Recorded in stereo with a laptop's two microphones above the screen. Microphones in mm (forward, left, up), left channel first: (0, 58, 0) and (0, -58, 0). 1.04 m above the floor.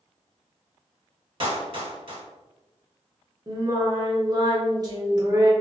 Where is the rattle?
I don't hear a rattle.